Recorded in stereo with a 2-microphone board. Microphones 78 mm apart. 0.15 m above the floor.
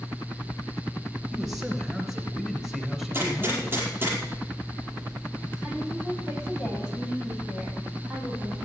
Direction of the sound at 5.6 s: 5° right (ahead or behind).